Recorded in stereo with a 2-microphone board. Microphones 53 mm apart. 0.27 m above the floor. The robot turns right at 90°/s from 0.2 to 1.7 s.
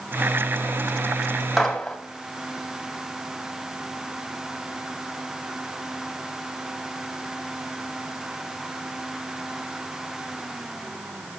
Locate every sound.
1.6 s a gunshot: centre (ahead or behind), 2.0 m; by 2.0 s 5° left (ahead or behind), 2.0 m